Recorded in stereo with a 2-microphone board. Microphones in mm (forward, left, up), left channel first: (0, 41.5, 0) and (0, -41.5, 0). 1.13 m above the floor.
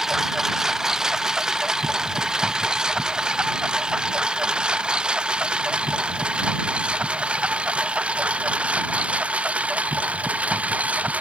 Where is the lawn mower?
5° right (ahead or behind); by 11.2 s 15° right (ahead or behind).